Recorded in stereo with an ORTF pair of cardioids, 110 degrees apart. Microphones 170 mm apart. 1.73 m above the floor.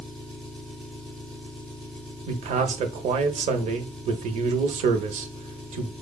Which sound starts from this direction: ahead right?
A man speaking, at 2.3 s.